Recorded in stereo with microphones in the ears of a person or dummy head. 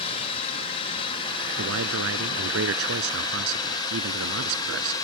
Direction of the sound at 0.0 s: 30° left (ahead or behind).